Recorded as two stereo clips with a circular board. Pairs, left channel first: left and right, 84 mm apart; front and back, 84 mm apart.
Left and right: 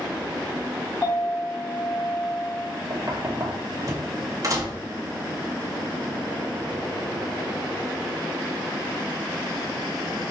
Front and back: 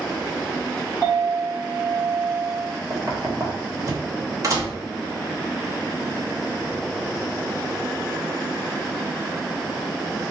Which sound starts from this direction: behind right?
Knocking, at 2.9 s.